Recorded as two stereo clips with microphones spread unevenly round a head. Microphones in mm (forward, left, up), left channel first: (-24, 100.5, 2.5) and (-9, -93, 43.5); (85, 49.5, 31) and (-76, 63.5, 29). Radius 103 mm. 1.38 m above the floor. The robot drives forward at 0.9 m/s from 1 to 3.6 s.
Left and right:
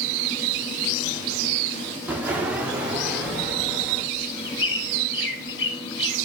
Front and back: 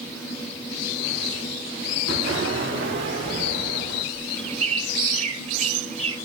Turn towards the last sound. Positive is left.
turn(degrees=130)